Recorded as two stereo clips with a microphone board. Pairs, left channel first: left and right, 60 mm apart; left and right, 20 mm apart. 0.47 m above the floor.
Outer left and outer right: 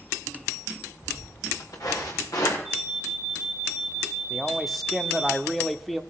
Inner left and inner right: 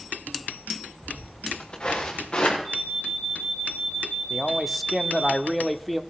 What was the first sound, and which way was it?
Footsteps, 65° left (ahead or behind).